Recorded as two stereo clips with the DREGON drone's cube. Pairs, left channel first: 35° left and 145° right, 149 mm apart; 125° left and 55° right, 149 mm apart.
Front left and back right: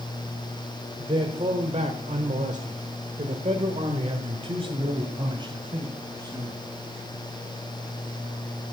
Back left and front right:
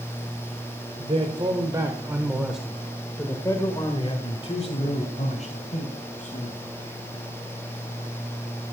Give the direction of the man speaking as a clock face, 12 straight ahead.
3 o'clock.